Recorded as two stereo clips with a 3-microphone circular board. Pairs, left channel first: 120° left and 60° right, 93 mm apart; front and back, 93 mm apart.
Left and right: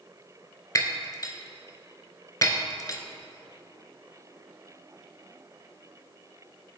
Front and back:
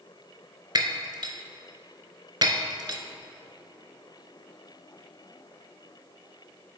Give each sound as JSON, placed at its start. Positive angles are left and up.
{"t": 0.8, "sound": "breaking glass", "azimuth_deg": 160, "distance_m": 0.6}